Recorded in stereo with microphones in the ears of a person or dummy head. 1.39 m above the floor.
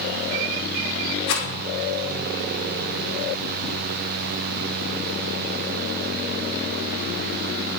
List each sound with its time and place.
1.3 s a rattle: 80° left, 5 m